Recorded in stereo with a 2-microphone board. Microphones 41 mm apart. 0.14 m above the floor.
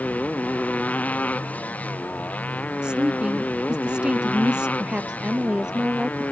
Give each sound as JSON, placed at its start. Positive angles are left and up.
{"t": 0.0, "sound": "a motorcycle", "side_deg": 35}
{"t": 2.8, "sound": "a woman speaking", "side_deg": -25}
{"t": 4.8, "sound": "a woman speaking", "side_deg": -20}